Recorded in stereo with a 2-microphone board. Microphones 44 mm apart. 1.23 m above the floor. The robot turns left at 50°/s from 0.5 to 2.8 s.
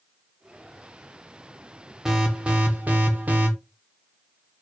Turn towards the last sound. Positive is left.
turn(degrees=-50)